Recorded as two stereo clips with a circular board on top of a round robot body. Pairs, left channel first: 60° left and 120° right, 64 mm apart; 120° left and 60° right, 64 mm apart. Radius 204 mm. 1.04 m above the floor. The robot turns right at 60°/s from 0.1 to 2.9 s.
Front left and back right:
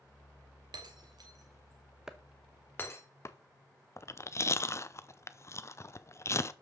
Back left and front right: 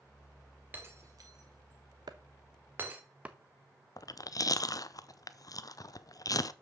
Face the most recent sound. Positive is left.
turn(degrees=100)